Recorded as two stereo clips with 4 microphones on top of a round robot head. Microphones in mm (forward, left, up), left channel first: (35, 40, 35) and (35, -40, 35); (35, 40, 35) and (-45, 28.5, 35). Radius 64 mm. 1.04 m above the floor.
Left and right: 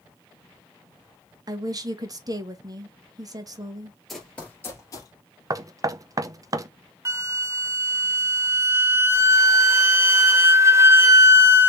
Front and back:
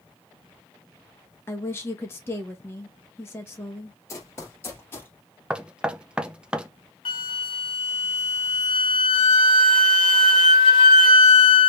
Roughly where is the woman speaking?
Ahead right.